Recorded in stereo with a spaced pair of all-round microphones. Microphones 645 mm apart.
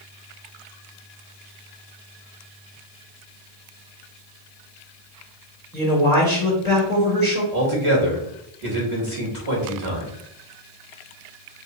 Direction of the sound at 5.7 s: 5° left (ahead or behind).